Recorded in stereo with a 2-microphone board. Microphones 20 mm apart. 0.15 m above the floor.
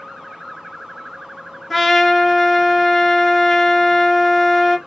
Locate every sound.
1.7 s a trumpet: 5° left (ahead or behind), 0.9 m